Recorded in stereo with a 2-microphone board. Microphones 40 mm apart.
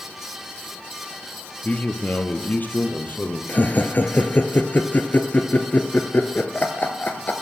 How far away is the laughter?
About 1.6 m.